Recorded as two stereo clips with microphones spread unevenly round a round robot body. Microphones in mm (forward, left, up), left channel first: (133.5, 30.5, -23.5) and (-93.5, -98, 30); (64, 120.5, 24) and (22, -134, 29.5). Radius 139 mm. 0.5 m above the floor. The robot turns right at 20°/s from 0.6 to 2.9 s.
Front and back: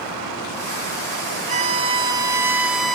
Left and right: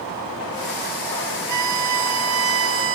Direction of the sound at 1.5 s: 90° right.